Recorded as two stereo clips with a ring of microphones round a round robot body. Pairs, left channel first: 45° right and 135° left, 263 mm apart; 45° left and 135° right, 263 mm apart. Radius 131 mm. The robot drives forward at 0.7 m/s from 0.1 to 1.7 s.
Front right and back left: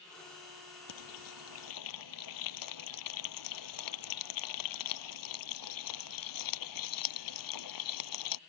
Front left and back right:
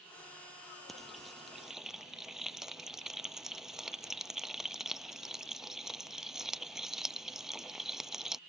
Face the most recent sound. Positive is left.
turn(degrees=-45)